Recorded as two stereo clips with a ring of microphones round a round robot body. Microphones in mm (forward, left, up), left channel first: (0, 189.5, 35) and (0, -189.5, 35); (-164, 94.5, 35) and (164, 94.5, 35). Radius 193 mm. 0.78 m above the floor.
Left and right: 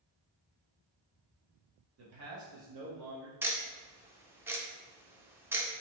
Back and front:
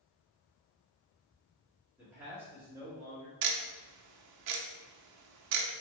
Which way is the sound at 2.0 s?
80° right.